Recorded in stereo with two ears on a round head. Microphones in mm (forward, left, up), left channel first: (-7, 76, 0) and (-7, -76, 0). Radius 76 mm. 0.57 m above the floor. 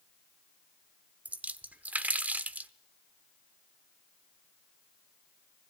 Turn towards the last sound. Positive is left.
turn(degrees=-10)  # may be behind; listen again after turning